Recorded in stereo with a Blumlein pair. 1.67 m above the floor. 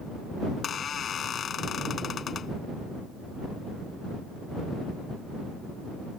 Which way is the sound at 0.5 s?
25° left.